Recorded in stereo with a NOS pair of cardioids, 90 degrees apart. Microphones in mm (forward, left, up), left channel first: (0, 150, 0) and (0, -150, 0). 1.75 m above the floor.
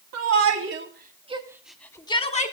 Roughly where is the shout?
Ahead right.